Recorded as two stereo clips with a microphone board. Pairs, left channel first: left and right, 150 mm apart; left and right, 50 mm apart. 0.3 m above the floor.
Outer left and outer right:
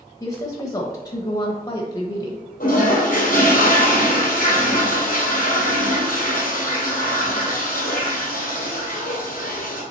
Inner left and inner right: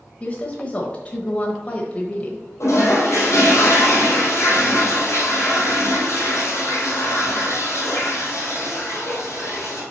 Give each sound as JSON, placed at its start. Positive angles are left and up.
{"t": 0.2, "sound": "a woman speaking", "side_deg": 25, "distance_m": 1.0}
{"t": 2.6, "sound": "a toilet flushing", "side_deg": 65, "distance_m": 2.5}